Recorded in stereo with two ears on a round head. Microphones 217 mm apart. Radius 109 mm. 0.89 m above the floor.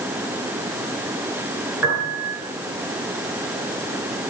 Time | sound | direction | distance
1.8 | a piano | 5° right (ahead or behind) | 9 m